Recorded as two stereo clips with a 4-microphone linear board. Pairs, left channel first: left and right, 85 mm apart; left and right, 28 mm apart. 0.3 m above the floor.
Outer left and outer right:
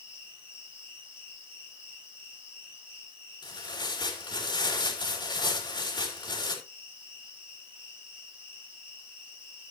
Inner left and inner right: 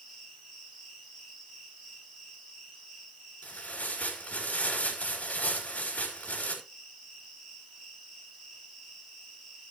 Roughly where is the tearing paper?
Left.